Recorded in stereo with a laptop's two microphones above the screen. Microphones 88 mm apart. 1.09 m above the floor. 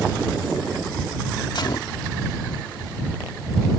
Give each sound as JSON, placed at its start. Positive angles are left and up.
{"t": 1.6, "sound": "a gunshot", "side_deg": 55}